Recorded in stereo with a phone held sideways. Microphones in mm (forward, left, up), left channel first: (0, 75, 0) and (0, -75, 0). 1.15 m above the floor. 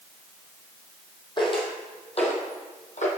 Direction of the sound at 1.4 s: 35° left (ahead or behind).